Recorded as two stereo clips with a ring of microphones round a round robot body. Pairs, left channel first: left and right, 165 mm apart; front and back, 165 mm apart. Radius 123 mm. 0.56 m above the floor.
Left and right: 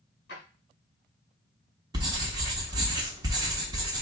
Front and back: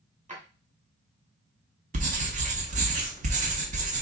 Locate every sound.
0.3 s a drawer: 135° left, 2 m
1.9 s writing: 150° right, 0.8 m